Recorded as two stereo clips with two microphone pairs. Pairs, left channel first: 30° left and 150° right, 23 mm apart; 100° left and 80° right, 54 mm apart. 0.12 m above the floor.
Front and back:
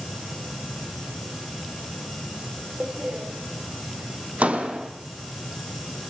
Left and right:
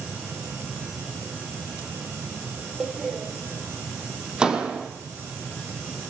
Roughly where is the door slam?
Behind right.